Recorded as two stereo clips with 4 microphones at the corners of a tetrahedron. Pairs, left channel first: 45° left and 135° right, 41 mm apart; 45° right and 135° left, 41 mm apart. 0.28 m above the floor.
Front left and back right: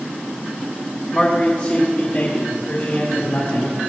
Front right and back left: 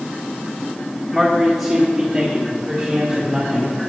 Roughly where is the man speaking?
Ahead left.